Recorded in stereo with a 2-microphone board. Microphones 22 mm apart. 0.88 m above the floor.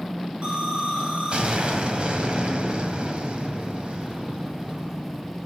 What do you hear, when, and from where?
0.4 s an explosion: 50° right (ahead or behind), 2 m